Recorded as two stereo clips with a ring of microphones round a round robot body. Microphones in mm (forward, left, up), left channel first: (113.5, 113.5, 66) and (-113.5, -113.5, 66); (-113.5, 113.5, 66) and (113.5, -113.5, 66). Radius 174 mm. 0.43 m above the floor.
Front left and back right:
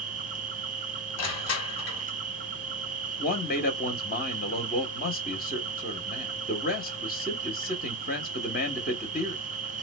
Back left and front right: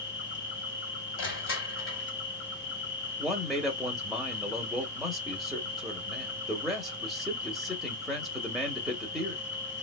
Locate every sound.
0.0 s an insect: 170° left, 0.9 m
1.2 s crushing: 85° left, 1.3 m
3.2 s a man speaking: 45° left, 0.9 m